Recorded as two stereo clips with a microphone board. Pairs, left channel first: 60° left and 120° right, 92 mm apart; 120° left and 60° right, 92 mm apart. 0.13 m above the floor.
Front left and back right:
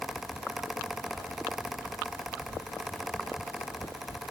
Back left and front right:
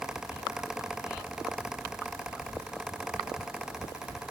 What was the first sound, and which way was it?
Only background noise.